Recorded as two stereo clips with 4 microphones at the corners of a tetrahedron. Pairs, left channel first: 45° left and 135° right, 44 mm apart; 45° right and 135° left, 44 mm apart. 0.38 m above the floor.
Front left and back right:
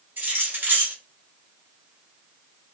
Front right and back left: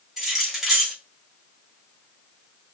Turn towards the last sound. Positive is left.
turn(degrees=-140)